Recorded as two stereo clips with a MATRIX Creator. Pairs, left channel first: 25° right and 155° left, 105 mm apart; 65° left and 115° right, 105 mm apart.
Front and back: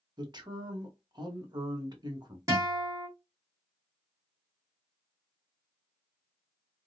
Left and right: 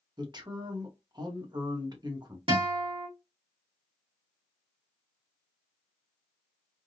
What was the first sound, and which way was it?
A man speaking, 155° right.